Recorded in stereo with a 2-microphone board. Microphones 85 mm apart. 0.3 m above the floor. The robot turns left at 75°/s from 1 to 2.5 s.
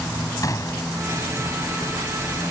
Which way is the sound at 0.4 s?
45° left (ahead or behind).